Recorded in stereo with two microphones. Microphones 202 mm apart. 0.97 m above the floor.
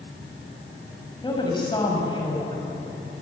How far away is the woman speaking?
About 6 m.